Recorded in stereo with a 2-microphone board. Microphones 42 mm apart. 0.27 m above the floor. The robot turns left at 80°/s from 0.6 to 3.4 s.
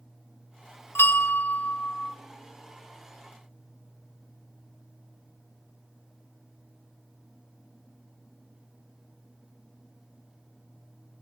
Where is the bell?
95° left, 0.6 m; by 2.1 s straight ahead, 0.6 m.